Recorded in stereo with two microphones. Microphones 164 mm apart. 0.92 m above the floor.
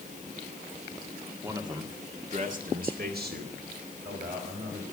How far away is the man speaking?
About 2 m.